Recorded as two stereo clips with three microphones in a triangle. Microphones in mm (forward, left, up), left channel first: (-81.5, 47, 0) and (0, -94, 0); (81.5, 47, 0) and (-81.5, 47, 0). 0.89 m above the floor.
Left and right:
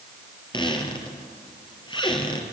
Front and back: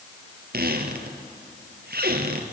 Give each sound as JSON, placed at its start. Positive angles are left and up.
{"t": 0.5, "sound": "a squeak", "azimuth_deg": 180, "distance_m": 2.5}